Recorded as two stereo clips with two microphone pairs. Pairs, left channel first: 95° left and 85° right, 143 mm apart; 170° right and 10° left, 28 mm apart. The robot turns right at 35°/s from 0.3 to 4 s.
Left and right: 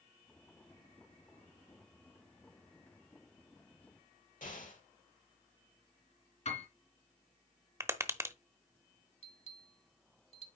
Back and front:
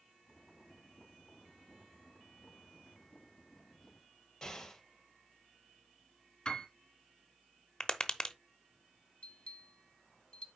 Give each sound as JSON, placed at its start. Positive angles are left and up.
{"t": 4.4, "sound": "an explosion", "azimuth_deg": 115, "distance_m": 2.5}
{"t": 6.5, "sound": "a piano", "azimuth_deg": 130, "distance_m": 2.0}
{"t": 7.8, "sound": "tapping", "azimuth_deg": -140, "distance_m": 0.8}
{"t": 9.2, "sound": "a bell", "azimuth_deg": 135, "distance_m": 1.3}